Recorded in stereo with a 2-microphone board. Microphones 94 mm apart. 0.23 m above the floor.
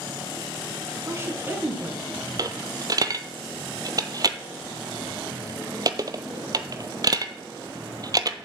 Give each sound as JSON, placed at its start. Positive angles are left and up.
{"t": 1.1, "sound": "a woman speaking", "side_deg": -30, "distance_m": 2.0}
{"t": 2.4, "sound": "a dropped coin", "side_deg": -45, "distance_m": 0.7}